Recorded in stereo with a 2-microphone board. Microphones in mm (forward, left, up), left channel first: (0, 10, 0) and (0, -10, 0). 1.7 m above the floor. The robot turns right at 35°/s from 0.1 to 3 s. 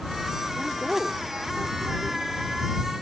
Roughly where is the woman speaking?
Behind.